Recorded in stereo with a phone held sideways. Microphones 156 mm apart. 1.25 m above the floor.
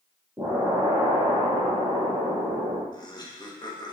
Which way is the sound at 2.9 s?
30° left (ahead or behind).